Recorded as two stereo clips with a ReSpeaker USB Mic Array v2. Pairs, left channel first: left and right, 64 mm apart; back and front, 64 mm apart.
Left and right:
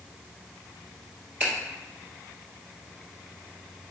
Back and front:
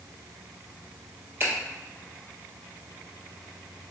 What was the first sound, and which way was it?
A finger snap, 30° right.